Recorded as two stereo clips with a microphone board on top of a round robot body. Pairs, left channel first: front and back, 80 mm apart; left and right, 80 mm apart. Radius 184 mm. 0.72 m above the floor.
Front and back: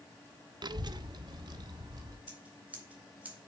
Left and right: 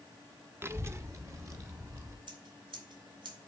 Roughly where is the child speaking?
Behind right.